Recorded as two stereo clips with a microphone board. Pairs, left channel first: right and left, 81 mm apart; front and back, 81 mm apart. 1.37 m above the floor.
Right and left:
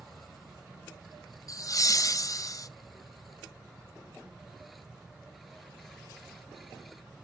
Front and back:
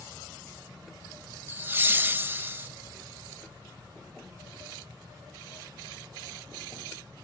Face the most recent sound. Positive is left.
turn(degrees=-120)